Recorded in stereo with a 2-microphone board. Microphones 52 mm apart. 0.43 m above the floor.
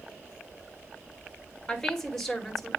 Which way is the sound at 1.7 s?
10° left (ahead or behind).